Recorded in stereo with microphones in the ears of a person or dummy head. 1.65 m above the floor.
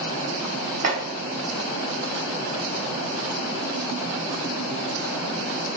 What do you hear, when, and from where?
0.8 s chopping: 50° right (ahead or behind), 1.1 m